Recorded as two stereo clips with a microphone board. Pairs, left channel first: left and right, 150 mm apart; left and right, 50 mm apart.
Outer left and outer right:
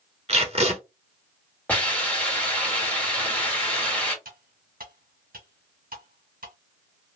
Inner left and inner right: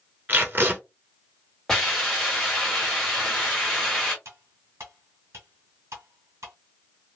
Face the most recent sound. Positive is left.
turn(degrees=-75)  # may be behind; listen again after turning